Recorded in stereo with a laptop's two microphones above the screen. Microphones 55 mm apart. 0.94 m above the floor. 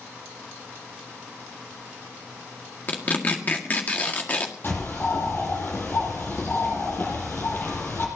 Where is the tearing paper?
30° left (ahead or behind), 1.8 m.